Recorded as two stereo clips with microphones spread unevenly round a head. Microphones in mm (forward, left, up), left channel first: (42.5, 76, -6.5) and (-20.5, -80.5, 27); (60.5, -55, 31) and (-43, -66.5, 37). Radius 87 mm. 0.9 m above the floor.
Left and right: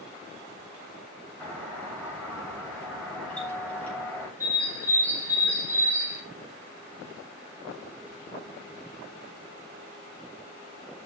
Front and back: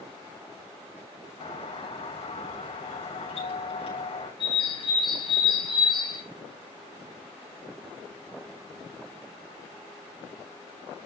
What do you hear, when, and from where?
1.4 s a doorbell: 15° right, 7.5 m
4.4 s a bird: 35° right, 3.5 m